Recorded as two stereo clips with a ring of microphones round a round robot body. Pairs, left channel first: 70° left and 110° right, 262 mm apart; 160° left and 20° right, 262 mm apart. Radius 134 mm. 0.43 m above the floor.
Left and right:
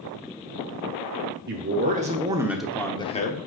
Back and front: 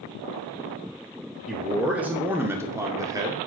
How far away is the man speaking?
About 1.1 m.